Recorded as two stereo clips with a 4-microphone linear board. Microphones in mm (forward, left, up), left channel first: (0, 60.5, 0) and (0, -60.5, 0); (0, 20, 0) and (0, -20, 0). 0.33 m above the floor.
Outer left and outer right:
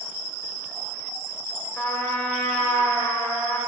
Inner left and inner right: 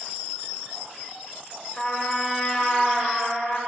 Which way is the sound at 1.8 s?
15° left (ahead or behind).